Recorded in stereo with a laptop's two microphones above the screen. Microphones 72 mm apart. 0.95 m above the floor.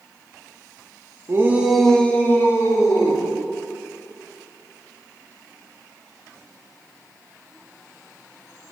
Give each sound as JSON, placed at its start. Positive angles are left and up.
{"t": 1.3, "sound": "a shout", "side_deg": -40, "distance_m": 0.9}